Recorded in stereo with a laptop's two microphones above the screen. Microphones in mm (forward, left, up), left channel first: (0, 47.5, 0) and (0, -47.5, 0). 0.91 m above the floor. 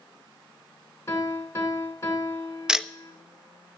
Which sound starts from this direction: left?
A piano, at 1.1 s.